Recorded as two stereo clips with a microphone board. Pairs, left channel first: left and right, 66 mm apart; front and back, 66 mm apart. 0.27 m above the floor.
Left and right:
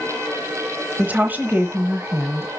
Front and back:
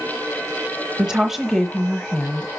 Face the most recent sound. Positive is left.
turn(degrees=-65)